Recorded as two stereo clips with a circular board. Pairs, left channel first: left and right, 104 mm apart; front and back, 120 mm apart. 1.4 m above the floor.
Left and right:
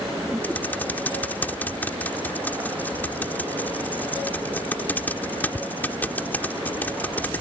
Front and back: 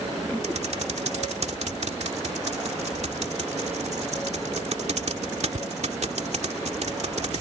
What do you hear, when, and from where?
0.4 s typing on a keyboard: 160° left